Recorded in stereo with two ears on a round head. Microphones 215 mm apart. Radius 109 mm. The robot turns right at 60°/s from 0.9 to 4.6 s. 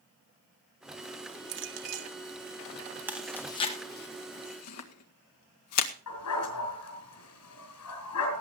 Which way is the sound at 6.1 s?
80° left.